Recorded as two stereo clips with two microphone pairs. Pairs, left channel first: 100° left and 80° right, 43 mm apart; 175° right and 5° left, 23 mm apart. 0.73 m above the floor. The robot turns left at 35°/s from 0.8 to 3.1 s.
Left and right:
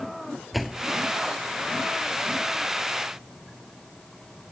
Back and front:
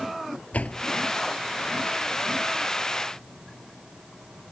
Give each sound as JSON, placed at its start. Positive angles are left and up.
{"t": 0.5, "sound": "a door slam", "azimuth_deg": -170}